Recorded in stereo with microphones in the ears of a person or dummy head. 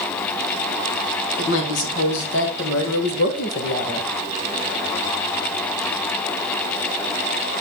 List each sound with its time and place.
1.4 s a woman speaking: 70° left (ahead or behind), 2 m; by 4.1 s 35° left (ahead or behind), 1.4 m